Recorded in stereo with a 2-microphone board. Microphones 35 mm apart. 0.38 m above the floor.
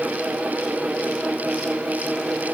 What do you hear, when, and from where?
Only background noise.